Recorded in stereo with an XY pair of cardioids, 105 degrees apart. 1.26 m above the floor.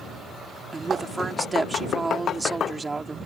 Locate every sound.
0.7 s a woman speaking: 25° right